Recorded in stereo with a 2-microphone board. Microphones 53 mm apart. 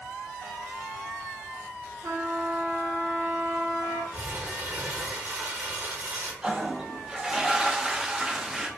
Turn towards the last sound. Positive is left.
turn(degrees=-10)  # may be behind; listen again after turning